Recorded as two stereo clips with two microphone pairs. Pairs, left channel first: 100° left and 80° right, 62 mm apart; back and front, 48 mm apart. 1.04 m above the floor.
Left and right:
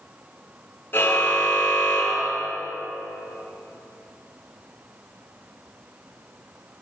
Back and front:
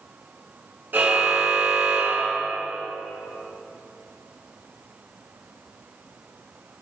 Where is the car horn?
45° left, 8.5 m.